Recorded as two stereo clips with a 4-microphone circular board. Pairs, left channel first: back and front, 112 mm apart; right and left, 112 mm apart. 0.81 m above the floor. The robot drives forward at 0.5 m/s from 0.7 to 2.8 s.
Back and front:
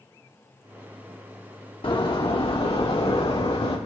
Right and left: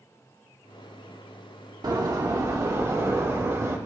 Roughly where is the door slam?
Behind left.